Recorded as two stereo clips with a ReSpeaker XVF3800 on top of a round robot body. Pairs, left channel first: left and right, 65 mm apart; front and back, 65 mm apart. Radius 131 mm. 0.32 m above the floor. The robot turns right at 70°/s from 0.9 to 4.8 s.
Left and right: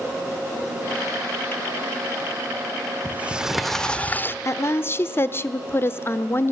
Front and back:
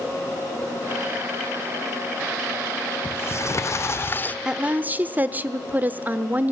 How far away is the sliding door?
About 1.0 m.